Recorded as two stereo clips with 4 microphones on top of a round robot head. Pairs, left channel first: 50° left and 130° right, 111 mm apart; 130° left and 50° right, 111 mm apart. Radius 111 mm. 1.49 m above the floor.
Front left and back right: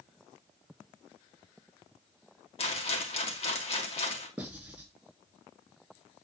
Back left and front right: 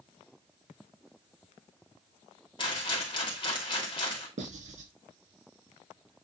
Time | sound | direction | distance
2.6 | a rattle | 80° left | 2.0 m
4.4 | writing | 50° right | 3 m